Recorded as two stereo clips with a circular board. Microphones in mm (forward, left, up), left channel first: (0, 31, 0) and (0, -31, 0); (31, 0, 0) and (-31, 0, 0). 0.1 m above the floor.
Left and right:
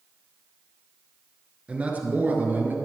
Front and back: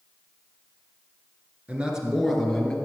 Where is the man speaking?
135° right, 1.9 m; by 2.8 s 70° right, 2 m.